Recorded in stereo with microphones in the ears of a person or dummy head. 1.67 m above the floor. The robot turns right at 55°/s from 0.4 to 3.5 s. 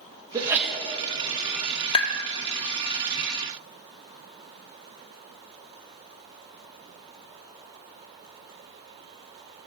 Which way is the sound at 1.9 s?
35° left (ahead or behind).